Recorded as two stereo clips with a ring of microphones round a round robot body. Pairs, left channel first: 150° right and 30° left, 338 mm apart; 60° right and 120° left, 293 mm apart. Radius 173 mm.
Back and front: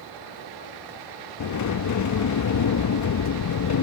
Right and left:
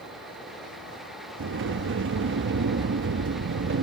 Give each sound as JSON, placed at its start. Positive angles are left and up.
{"t": 1.4, "sound": "a sliding door", "azimuth_deg": 170}